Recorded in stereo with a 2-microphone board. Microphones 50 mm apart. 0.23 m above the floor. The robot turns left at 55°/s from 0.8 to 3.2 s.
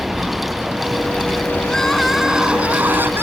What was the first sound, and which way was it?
A vehicle, 175° right.